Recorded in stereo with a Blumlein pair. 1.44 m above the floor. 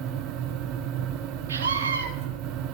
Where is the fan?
40° right, 1.1 m.